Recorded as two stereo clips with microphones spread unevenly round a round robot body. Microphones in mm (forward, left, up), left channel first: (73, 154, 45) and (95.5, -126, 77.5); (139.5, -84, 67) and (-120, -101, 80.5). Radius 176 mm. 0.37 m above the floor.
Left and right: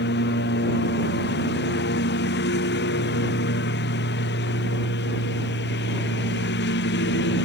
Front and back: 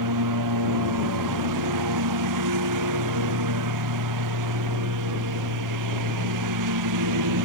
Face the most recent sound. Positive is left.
turn(degrees=155)